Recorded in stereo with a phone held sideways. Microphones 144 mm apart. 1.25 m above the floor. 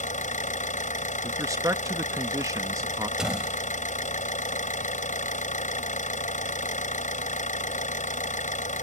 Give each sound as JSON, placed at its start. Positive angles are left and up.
{"t": 0.0, "sound": "an engine running", "side_deg": 60}
{"t": 1.2, "sound": "a man speaking", "side_deg": -20}
{"t": 3.2, "sound": "a door slam", "side_deg": -5}